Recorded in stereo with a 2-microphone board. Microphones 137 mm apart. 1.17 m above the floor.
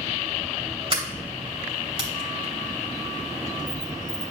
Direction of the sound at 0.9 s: 45° right (ahead or behind).